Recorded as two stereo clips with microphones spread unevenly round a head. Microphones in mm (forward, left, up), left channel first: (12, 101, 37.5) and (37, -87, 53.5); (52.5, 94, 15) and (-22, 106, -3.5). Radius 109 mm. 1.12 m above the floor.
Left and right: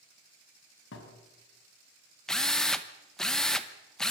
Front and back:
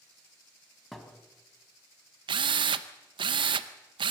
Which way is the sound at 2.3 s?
175° right.